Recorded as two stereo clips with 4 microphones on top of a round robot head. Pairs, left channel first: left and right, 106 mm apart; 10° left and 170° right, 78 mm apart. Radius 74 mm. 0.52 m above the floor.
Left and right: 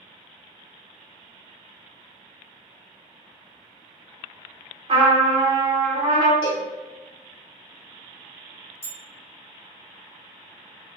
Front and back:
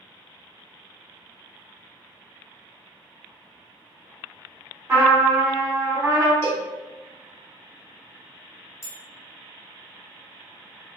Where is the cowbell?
55° left, 1.8 m.